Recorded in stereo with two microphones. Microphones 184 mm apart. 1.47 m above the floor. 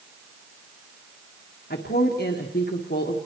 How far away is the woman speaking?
About 1.6 m.